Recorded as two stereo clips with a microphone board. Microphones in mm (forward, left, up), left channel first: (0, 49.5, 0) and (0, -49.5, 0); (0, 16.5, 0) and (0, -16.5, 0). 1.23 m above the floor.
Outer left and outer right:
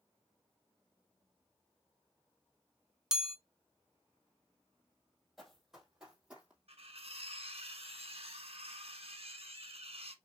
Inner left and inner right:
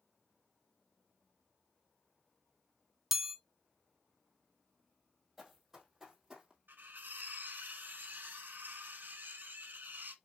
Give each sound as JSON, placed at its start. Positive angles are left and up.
{"t": 3.1, "sound": "a chime", "side_deg": -5, "distance_m": 0.6}
{"t": 5.4, "sound": "running footsteps", "side_deg": 0, "distance_m": 2.5}
{"t": 6.7, "sound": "cutlery clinking", "side_deg": -75, "distance_m": 1.2}